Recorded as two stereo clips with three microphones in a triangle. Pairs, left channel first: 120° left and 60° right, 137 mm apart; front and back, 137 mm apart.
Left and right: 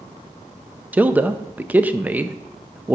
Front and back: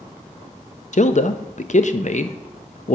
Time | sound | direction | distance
0.9 | a man speaking | 15° left | 0.6 m